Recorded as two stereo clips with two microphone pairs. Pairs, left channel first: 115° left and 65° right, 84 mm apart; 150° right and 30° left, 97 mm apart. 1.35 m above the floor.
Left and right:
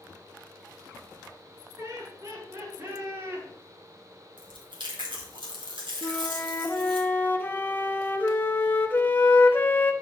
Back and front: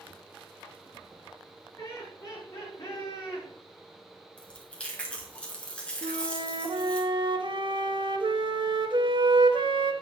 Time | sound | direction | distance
1.8 | laughter | 90° right | 4 m
4.4 | chewing | 70° right | 2 m
6.0 | a flute | 50° left | 0.9 m